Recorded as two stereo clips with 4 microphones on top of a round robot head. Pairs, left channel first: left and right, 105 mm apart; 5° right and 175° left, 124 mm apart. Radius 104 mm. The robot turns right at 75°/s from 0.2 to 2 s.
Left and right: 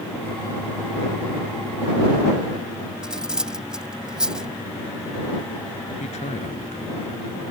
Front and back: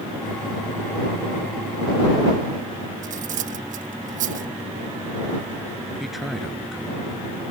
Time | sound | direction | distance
3.0 | cutlery clinking | 175° right | ?
6.0 | a man speaking | 85° left | ?